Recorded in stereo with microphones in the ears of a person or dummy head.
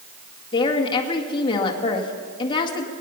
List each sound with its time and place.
0.5 s a woman speaking: 25° left (ahead or behind), 1.9 m